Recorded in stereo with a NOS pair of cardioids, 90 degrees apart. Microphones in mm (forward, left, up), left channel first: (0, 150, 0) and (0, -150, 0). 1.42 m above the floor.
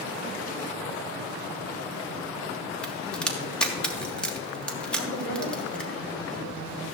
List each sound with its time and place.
2.8 s a crack: 5° left, 3 m
5.0 s a woman speaking: 45° left, 6 m